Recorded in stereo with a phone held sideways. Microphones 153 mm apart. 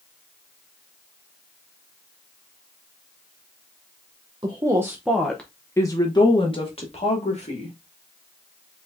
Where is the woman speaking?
30° right (ahead or behind), 0.8 m; by 7.8 s 50° left (ahead or behind), 1.8 m.